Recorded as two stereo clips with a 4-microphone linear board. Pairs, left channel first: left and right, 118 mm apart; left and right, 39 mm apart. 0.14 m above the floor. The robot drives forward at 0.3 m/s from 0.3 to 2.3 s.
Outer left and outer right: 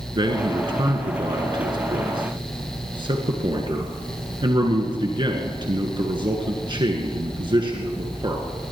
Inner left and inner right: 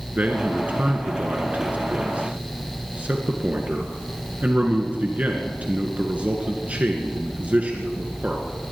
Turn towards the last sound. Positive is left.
turn(degrees=-45)  # may be behind; listen again after turning